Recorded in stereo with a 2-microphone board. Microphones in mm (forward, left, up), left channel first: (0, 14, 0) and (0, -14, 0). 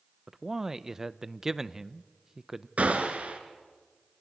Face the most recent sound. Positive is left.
turn(degrees=-65)  # may be behind; listen again after turning